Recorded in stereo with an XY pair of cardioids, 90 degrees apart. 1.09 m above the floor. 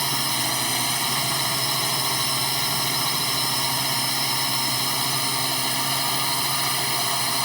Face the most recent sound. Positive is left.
turn(degrees=-5)